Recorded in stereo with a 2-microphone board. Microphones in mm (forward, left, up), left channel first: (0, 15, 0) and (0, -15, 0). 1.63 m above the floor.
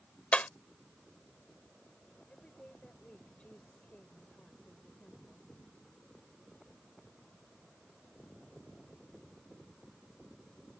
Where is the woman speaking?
40° left (ahead or behind).